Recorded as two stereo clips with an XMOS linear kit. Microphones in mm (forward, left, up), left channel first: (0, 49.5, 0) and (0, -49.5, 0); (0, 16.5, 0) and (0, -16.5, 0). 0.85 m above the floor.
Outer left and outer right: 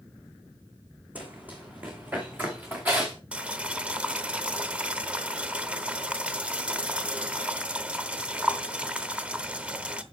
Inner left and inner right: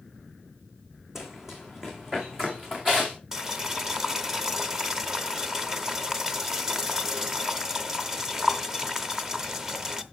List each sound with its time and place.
1.1 s running footsteps: 15° right (ahead or behind), 2 m; by 3.2 s 20° right (ahead or behind), 3.5 m
3.3 s boiling: 10° right (ahead or behind), 0.8 m